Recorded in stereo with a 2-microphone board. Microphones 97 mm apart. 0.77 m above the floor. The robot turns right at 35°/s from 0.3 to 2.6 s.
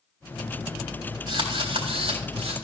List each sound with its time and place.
1.3 s a drill: 125° right, 3.5 m; by 2.5 s 80° right, 3.5 m